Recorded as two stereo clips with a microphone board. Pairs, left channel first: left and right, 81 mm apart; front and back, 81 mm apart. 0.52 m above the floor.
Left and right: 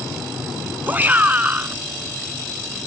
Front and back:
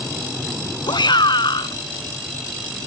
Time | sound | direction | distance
0.9 | a shout | 25° right | ?